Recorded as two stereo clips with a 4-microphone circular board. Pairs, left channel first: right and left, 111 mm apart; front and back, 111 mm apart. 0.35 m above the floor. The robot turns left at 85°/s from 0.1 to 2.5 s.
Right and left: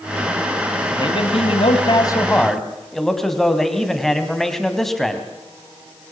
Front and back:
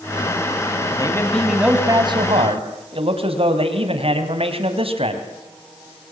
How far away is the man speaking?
About 3 m.